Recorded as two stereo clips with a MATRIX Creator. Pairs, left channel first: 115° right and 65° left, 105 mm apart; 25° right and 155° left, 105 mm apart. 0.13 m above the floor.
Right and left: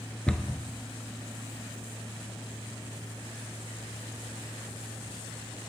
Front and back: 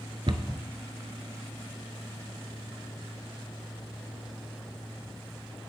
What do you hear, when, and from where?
0.3 s a cupboard door: 170° left, 0.8 m